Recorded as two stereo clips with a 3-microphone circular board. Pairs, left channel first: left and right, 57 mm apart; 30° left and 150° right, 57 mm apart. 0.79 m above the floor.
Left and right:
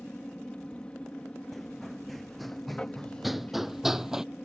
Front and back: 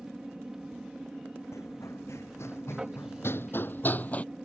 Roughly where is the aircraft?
Behind left.